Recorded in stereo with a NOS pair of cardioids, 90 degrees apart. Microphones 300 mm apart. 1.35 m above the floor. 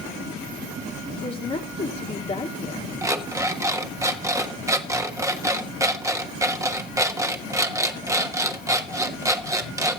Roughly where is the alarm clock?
Ahead.